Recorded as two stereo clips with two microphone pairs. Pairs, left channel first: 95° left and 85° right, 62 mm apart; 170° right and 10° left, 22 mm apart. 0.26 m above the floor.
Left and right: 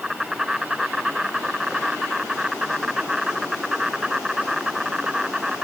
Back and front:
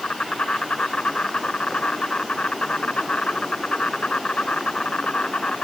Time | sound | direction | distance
0.0 | an insect | 160° right | ?